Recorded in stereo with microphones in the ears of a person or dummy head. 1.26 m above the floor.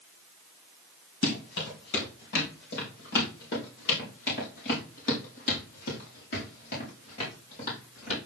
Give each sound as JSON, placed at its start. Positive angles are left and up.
{"t": 1.2, "sound": "running footsteps", "side_deg": 70, "distance_m": 5.0}